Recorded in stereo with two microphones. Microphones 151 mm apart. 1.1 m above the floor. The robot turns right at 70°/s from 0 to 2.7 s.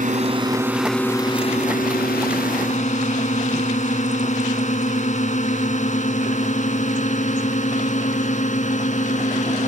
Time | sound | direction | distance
0.0 | a drone | 60° right (ahead or behind) | ?